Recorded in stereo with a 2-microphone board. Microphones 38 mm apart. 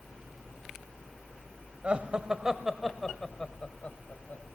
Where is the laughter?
35° right (ahead or behind), 1.3 m; by 4.4 s 50° left (ahead or behind), 1.6 m.